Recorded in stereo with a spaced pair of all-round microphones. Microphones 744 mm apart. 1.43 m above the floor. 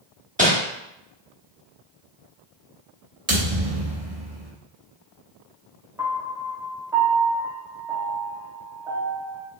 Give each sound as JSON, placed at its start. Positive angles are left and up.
{"t": 0.4, "sound": "crumpling", "side_deg": -10, "distance_m": 1.0}
{"t": 3.3, "sound": "a thud", "side_deg": -55, "distance_m": 1.4}
{"t": 6.0, "sound": "a piano", "side_deg": -5, "distance_m": 1.0}